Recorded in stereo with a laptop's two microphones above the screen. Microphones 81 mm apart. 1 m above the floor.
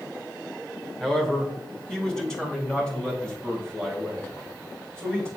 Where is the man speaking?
5° left (ahead or behind), 1.5 m; by 5.3 s 10° left (ahead or behind), 4.5 m.